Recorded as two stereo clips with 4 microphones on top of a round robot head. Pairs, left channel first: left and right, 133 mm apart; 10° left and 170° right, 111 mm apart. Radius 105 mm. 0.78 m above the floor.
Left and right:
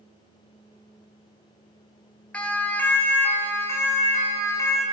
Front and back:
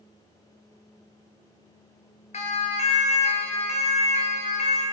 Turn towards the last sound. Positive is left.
turn(degrees=25)